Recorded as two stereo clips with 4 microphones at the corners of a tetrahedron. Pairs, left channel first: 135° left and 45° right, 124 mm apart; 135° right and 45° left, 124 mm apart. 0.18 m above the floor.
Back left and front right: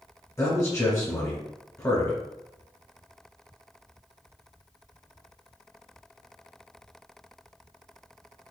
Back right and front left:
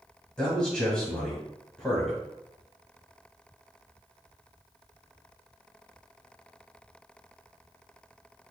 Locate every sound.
0.4 s a man speaking: 150° left, 1.3 m